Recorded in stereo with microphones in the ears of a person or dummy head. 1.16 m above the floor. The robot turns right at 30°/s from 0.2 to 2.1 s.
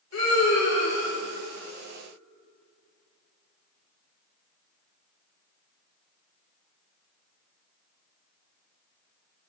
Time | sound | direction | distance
0.1 | a scream | 75° left (ahead or behind) | 3.5 m